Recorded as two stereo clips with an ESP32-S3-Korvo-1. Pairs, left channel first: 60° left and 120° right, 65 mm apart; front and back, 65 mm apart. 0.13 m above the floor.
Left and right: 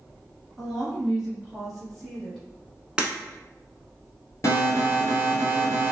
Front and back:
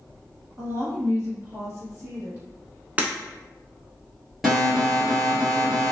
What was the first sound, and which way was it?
A woman speaking, 160° left.